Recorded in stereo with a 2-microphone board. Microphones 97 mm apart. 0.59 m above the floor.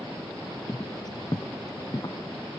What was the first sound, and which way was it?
Footsteps, 40° left (ahead or behind).